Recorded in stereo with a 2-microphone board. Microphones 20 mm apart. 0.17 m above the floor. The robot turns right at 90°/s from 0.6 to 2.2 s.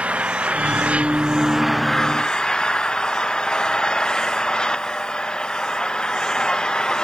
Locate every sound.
0.0 s an engine running: 110° right; by 7.0 s 35° left